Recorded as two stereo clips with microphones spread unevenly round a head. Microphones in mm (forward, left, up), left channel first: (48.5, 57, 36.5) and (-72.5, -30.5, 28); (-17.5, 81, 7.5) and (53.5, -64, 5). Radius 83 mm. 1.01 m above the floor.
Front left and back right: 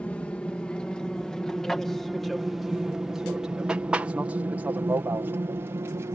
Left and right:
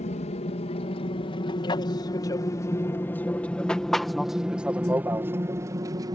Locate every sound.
0.0 s an aircraft: 115° left; by 6.2 s 100° right